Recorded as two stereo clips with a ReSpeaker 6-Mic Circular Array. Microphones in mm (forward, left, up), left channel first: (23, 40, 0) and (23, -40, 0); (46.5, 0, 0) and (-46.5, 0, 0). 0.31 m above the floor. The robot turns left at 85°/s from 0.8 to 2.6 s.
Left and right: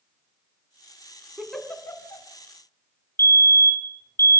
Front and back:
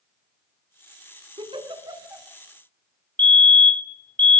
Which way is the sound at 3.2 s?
60° left.